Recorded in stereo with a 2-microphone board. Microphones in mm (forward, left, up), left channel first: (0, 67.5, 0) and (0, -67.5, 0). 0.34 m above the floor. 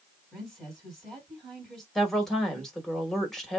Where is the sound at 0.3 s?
Centre (ahead or behind), 2 m.